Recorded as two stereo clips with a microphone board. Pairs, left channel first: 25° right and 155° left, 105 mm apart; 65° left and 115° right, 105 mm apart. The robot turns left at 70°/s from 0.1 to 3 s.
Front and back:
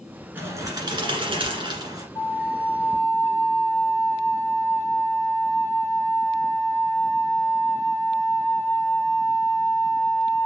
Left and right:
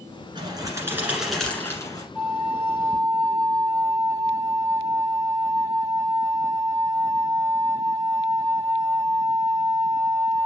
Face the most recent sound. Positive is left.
turn(degrees=-75)